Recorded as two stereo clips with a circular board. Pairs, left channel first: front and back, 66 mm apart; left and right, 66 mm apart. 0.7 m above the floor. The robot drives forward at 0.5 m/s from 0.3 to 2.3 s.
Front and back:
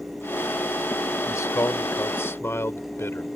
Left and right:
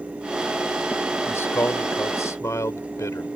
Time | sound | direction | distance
1.3 | a man speaking | 40° left | ?